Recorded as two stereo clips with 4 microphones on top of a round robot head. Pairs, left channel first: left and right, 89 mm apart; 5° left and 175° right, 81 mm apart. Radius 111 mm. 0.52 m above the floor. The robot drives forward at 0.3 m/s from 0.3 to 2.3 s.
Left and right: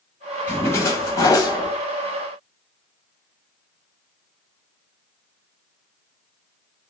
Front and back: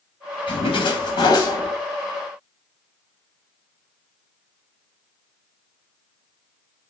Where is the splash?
25° left, 0.8 m; by 1.8 s 45° left, 0.5 m.